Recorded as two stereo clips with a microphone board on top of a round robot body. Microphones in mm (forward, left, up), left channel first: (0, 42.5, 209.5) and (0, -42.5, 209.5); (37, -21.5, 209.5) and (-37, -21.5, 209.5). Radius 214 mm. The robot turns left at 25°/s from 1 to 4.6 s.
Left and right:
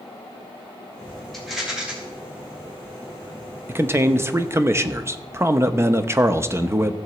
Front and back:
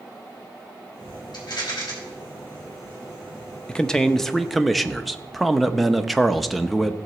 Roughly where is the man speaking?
Ahead right.